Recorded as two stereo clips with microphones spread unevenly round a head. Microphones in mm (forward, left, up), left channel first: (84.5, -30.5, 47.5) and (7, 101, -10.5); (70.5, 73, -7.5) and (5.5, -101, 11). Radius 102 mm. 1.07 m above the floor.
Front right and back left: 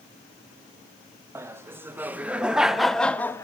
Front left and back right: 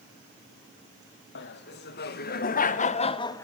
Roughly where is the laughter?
Ahead left.